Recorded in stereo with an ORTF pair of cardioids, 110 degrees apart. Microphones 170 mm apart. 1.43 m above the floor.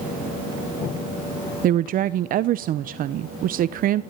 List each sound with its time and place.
1.6 s a woman speaking: 55° right, 0.7 m